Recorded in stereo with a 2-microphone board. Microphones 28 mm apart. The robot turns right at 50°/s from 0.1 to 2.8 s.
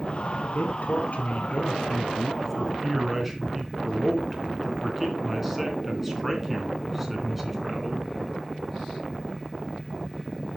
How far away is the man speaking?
About 3.5 m.